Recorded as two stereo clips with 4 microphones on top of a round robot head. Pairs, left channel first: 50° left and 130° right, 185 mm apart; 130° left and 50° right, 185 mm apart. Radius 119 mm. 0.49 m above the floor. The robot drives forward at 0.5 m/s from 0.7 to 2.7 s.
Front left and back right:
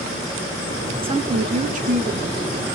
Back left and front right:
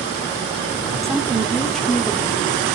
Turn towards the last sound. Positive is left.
turn(degrees=-160)